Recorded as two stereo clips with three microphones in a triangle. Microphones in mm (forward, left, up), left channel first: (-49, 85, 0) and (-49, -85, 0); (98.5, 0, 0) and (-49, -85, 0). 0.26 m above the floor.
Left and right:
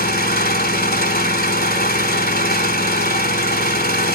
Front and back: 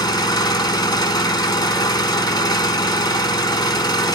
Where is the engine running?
90° left, 0.8 m.